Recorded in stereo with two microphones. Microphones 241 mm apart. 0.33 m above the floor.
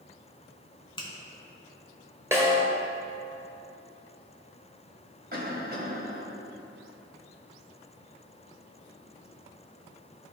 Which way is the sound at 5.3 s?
40° right (ahead or behind).